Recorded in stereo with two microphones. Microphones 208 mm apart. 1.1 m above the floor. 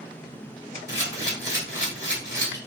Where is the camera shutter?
60° left (ahead or behind), 1.4 m.